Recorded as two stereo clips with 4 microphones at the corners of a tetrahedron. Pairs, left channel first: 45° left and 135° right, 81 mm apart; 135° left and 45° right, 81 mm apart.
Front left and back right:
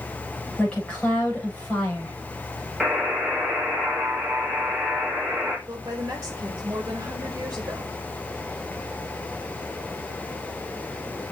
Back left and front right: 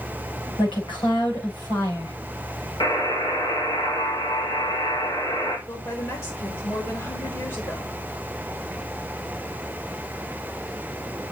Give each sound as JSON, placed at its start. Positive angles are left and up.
{"t": 0.6, "sound": "a woman speaking", "azimuth_deg": 120, "distance_m": 6.5}
{"t": 2.8, "sound": "a buzzer", "azimuth_deg": 145, "distance_m": 3.5}
{"t": 5.7, "sound": "a woman speaking", "azimuth_deg": 175, "distance_m": 2.5}